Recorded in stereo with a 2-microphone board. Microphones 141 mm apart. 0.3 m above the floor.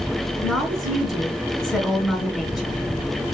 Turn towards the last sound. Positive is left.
turn(degrees=0)  # may be behind; listen again after turning